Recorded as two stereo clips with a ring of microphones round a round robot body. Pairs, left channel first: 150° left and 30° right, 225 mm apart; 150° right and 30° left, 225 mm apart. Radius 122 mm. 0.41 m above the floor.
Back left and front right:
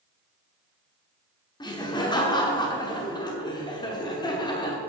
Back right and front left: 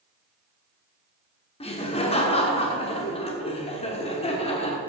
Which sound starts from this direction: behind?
Laughter, at 1.6 s.